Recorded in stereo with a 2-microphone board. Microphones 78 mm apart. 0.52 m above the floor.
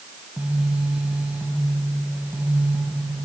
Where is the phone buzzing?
15° right (ahead or behind), 4 m.